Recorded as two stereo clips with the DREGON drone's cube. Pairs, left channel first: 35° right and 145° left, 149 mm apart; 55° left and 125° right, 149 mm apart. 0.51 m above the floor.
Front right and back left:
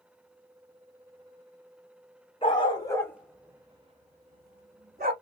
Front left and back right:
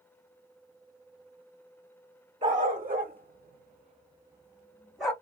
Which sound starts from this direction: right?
A dog barking, at 2.4 s.